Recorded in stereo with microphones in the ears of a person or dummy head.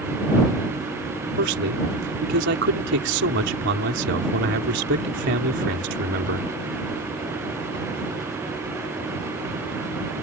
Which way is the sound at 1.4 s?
60° right (ahead or behind).